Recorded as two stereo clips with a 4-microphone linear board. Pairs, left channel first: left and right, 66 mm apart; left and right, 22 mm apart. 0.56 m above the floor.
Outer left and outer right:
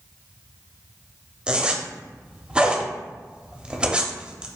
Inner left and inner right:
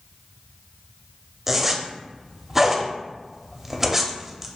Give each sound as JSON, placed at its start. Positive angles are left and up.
{"t": 1.5, "sound": "a zipper", "side_deg": -15, "distance_m": 0.6}